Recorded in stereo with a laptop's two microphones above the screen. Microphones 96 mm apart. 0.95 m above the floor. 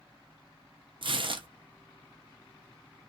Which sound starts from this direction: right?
Tearing paper, at 1.0 s.